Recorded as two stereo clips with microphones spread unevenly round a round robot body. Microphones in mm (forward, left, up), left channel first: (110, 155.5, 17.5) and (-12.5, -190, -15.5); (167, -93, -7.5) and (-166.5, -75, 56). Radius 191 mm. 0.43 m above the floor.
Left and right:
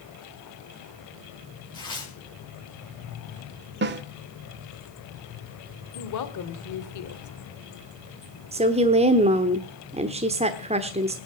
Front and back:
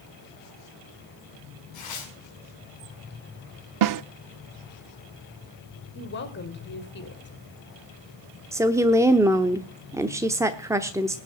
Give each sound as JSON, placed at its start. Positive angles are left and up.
{"t": 1.7, "sound": "tearing paper", "azimuth_deg": -10, "distance_m": 4.5}
{"t": 3.8, "sound": "a snare drum", "azimuth_deg": -160, "distance_m": 0.6}
{"t": 6.0, "sound": "a woman speaking", "azimuth_deg": 35, "distance_m": 1.8}
{"t": 8.5, "sound": "a woman speaking", "azimuth_deg": -85, "distance_m": 0.9}